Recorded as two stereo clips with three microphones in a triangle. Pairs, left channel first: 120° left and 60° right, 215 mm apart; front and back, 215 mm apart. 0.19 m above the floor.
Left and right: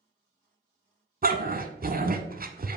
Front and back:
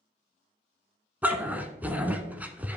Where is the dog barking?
100° right, 0.9 m.